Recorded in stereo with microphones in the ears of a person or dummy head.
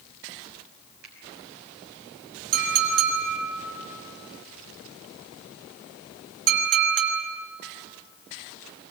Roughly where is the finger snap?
Right.